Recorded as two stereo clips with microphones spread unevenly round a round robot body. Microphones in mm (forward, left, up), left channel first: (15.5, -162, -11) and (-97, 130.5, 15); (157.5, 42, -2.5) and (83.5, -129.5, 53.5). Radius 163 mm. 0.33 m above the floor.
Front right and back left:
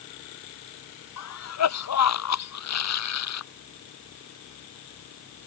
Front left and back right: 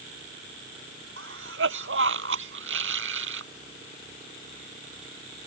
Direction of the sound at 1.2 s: 105° right.